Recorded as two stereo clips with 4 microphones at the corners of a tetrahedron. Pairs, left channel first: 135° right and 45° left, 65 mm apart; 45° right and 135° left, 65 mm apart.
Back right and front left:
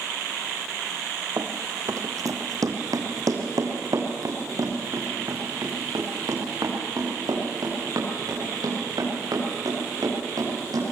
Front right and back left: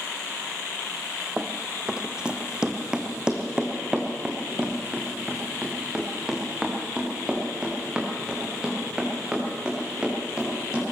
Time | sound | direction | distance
1.4 | running footsteps | 60° left | 1.4 m